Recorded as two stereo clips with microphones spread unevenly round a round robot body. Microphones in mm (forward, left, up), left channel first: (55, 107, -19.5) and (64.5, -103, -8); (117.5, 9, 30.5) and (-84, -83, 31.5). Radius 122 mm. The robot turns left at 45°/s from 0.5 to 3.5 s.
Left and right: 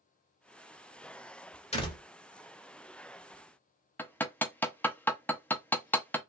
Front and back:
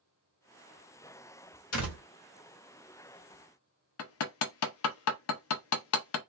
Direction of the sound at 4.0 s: 10° left.